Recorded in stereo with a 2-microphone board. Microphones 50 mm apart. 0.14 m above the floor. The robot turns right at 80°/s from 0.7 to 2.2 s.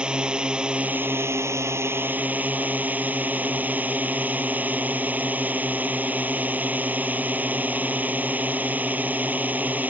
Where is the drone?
160° right; by 9.9 s 40° right.